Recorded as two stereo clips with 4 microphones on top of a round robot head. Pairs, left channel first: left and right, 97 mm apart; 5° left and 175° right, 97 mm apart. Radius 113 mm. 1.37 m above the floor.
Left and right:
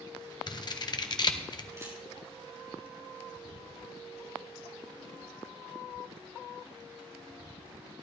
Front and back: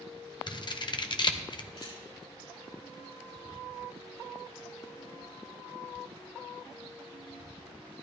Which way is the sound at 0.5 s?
45° left.